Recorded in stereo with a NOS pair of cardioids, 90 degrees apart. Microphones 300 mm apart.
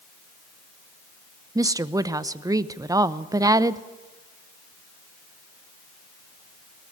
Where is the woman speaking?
10° right, 0.8 m.